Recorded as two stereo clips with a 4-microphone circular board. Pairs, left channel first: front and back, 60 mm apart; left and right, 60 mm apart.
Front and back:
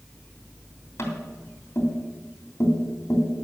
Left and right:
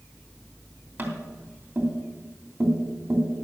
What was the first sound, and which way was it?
Tapping, 40° right.